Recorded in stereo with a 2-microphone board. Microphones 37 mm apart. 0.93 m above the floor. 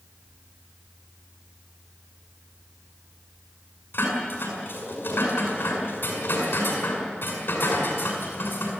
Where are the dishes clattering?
90° left, 6.5 m.